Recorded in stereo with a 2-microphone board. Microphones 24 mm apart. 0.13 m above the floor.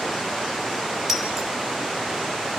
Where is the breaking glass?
15° right (ahead or behind), 3.5 m.